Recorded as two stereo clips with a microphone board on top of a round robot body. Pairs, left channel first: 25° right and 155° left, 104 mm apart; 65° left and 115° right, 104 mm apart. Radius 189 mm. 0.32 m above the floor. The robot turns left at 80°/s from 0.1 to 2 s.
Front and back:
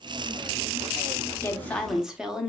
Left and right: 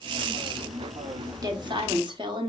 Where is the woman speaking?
75° right, 1.4 m; by 2.5 s 120° right, 1.4 m.